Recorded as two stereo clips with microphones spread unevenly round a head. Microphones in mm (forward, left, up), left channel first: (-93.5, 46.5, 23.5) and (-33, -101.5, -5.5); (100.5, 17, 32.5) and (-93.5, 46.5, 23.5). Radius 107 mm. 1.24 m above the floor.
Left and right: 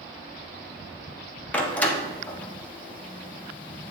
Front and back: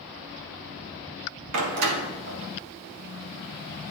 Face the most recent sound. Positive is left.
turn(degrees=-170)